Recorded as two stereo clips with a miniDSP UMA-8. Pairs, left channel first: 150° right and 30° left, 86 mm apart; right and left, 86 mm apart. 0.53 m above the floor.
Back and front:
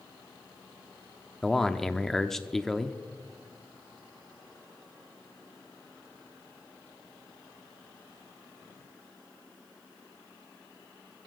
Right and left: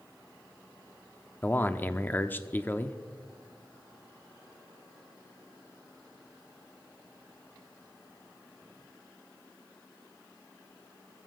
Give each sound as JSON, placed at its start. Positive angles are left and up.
{"t": 1.4, "sound": "a man speaking", "azimuth_deg": -70, "distance_m": 0.7}